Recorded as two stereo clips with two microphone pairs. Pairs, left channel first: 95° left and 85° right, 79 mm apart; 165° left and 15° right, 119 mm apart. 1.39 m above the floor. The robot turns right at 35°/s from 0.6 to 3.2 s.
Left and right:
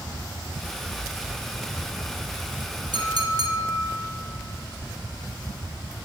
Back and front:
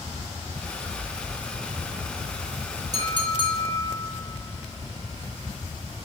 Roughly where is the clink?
Right.